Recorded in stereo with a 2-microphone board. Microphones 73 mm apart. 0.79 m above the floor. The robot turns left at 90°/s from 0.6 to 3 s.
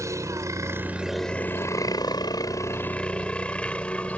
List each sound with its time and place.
0.0 s a helicopter: 45° right (ahead or behind); by 4.2 s 15° left (ahead or behind)